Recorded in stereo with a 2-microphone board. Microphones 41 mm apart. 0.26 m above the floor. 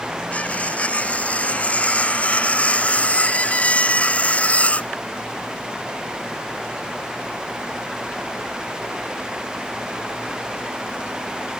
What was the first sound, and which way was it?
Cutlery clinking, 35° left (ahead or behind).